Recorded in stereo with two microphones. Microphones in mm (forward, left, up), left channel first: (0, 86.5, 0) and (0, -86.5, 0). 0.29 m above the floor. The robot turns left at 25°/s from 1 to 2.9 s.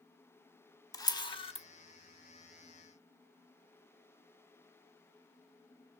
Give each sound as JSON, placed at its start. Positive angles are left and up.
{"t": 0.9, "sound": "a camera shutter", "side_deg": 20, "distance_m": 0.6}